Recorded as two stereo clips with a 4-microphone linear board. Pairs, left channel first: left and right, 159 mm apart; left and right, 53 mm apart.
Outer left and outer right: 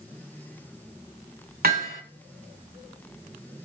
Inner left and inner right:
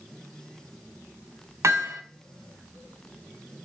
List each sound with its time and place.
1.6 s hammering: 75° right (ahead or behind), 2.5 m